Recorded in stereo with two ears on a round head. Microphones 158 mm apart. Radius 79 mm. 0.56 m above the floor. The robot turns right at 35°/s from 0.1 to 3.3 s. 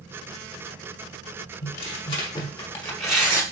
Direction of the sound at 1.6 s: 130° left.